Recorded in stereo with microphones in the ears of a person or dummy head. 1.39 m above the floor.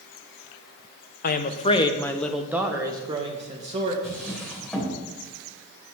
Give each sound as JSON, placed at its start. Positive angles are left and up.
{"t": 1.2, "sound": "a woman speaking", "side_deg": 50, "distance_m": 1.0}
{"t": 4.0, "sound": "a drawer", "side_deg": 5, "distance_m": 3.5}